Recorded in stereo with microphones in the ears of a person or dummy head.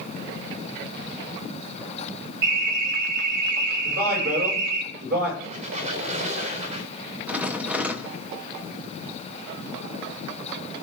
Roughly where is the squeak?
Right.